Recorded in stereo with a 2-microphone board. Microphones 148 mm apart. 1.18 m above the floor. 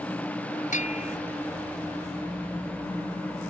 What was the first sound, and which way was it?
A bell, 55° left (ahead or behind).